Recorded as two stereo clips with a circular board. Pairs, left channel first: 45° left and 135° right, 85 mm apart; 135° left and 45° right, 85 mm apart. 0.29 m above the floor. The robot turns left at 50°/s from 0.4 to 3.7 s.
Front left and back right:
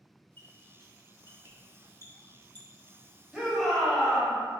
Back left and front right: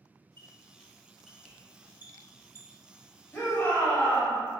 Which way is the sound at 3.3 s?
150° left.